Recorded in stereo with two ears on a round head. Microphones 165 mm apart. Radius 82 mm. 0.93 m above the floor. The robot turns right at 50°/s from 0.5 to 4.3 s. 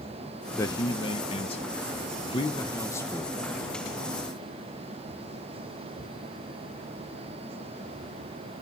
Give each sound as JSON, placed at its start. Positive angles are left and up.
{"t": 0.6, "sound": "a man speaking", "azimuth_deg": 30, "distance_m": 1.0}